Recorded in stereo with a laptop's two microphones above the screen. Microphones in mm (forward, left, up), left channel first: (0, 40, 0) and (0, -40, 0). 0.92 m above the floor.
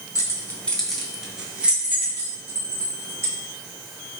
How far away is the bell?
I don't hear a bell.